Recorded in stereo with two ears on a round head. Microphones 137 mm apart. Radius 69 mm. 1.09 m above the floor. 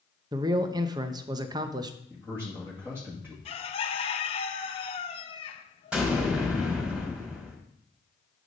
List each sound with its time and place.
0.3 s a man speaking: 25° right (ahead or behind), 0.7 m
2.1 s a man speaking: 15° right (ahead or behind), 2 m
3.5 s a bird: 40° left (ahead or behind), 0.7 m
5.9 s an explosion: 5° right (ahead or behind), 2.5 m